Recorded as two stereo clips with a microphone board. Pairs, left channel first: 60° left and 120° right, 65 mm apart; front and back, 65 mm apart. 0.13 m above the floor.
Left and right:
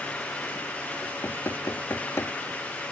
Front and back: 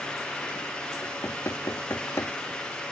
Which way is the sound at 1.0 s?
30° left.